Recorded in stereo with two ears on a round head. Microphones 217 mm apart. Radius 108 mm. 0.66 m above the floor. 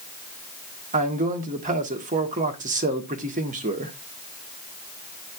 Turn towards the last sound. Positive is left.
turn(degrees=-30)  # may be behind; listen again after turning